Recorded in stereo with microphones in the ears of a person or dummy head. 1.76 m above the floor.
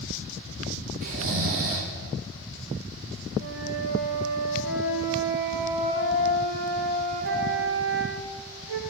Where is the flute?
75° right (ahead or behind), 1.9 m.